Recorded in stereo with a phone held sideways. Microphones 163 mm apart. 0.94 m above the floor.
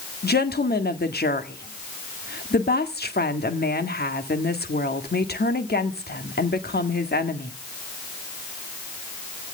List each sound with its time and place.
0.2 s a woman speaking: 80° left, 1.7 m